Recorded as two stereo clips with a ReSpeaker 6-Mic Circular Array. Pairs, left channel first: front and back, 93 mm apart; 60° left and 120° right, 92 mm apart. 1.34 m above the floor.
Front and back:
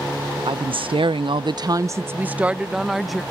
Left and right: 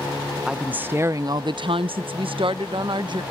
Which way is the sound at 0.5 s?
160° left.